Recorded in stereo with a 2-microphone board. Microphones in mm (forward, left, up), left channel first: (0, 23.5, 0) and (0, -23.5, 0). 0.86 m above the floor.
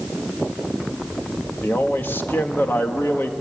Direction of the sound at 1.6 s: 50° left (ahead or behind).